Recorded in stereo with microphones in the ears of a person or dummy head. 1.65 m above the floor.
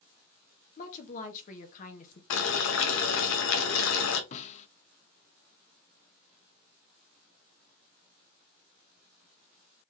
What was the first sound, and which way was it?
A woman speaking, 40° left (ahead or behind).